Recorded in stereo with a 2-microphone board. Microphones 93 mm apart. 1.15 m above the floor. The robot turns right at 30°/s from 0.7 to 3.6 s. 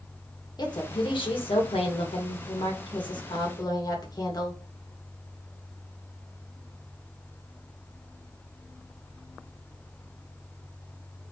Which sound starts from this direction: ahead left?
A woman speaking, at 0.6 s.